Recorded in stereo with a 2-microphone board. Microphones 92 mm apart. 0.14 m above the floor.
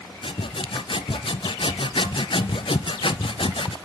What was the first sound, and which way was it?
Sawing, 70° left (ahead or behind).